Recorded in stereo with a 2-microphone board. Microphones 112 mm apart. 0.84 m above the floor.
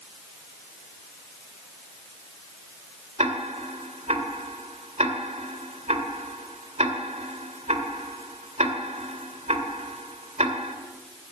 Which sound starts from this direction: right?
Ticking, at 3.2 s.